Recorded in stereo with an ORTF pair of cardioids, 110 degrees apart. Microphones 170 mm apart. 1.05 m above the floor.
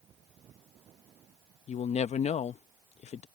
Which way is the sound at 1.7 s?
45° left.